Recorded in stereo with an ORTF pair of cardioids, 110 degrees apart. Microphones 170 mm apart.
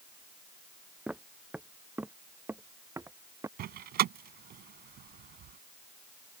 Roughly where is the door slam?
Ahead right.